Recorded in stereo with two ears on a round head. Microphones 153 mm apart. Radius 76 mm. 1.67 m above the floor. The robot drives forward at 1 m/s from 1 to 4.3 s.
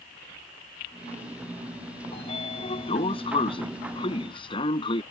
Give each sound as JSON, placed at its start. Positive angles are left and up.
{"t": 2.1, "sound": "a sliding door", "side_deg": 35}